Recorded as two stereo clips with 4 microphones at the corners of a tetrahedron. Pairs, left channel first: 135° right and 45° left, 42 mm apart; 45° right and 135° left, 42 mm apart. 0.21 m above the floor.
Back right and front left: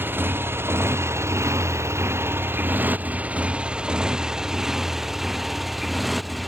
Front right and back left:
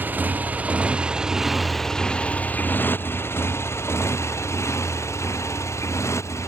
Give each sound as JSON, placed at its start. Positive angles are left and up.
{"t": 0.0, "sound": "a motorcycle", "azimuth_deg": 85}